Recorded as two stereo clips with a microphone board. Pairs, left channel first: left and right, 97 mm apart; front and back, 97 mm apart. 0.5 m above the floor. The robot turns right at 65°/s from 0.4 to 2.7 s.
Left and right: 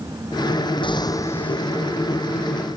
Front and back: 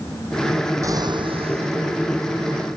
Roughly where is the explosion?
Behind left.